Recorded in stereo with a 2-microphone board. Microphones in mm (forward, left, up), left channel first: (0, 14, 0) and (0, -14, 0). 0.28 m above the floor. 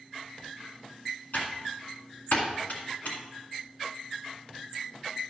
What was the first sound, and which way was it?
Typing on a keyboard, 70° left (ahead or behind).